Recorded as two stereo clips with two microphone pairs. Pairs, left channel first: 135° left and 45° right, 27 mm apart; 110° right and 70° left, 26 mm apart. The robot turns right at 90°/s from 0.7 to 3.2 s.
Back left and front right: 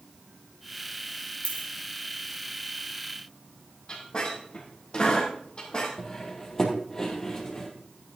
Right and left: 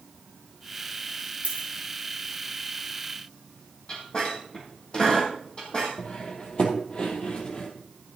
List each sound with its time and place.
1.4 s a dropped coin: 90° left, 3 m; by 1.7 s 110° left, 3 m
3.9 s a squeak: 165° right, 2.5 m
6.0 s cutlery clinking: 155° right, 2.5 m